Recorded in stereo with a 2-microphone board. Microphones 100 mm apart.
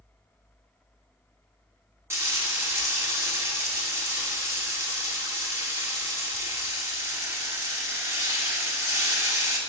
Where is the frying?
25° right (ahead or behind), 1.1 m.